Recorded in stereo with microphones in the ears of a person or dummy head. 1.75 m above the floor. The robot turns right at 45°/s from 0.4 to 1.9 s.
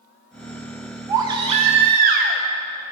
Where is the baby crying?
165° right, 1.0 m; by 2.4 s 130° right, 1.0 m.